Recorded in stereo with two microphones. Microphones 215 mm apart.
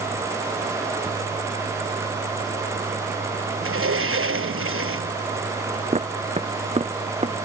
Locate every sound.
3.6 s a sliding door: 85° right
5.9 s footsteps: 30° right (ahead or behind)